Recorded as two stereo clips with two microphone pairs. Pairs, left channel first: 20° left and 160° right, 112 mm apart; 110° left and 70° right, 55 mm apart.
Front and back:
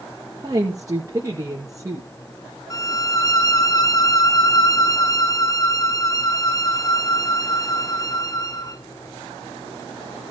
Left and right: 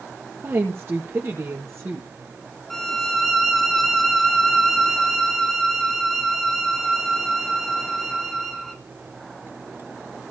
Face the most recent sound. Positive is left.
turn(degrees=25)